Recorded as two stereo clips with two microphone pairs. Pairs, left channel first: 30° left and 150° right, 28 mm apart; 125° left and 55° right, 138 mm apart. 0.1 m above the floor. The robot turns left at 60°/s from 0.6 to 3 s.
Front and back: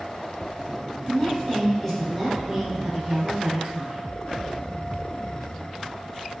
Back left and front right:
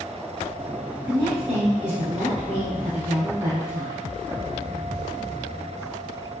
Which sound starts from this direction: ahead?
A woman speaking, at 1.1 s.